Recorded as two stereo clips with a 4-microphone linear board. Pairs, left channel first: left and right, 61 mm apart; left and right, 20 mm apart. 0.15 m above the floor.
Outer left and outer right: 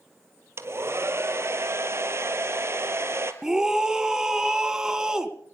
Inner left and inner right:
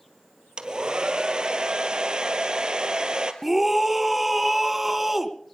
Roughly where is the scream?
Centre.